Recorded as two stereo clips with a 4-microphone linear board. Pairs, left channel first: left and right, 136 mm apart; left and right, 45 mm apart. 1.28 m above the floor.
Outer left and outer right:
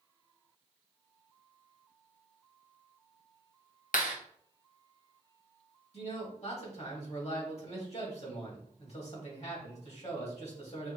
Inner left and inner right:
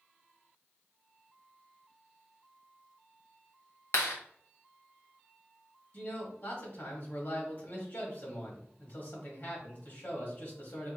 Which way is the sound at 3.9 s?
80° left.